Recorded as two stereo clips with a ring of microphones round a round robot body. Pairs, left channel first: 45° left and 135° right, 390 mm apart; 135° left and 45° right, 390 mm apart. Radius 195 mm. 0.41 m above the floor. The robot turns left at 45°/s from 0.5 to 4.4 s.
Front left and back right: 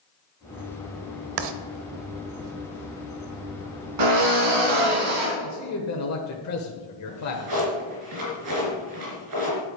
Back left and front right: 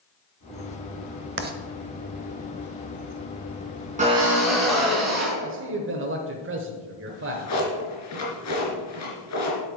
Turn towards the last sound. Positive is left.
turn(degrees=-175)